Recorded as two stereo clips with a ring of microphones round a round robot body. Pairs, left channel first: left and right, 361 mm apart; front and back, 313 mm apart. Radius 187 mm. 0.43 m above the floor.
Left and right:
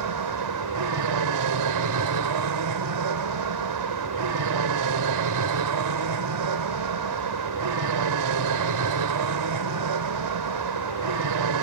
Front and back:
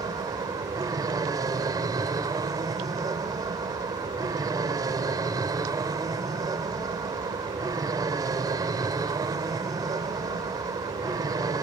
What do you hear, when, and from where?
0.0 s an aircraft: 105° right